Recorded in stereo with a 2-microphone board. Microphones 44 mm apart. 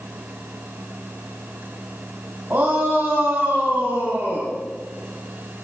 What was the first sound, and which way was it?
A shout, 50° right (ahead or behind).